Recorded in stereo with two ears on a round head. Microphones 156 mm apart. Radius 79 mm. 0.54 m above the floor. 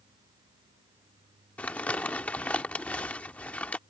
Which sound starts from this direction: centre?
Crumpling, at 1.6 s.